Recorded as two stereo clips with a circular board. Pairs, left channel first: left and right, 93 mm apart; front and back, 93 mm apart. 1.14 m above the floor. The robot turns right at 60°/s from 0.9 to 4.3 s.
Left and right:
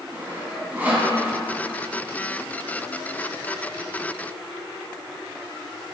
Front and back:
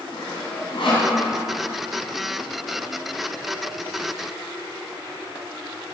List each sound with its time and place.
0.1 s sawing: 20° right, 3 m; by 1.1 s 10° right, 3 m